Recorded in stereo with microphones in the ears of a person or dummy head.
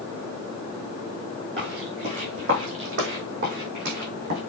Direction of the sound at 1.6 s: 35° right (ahead or behind).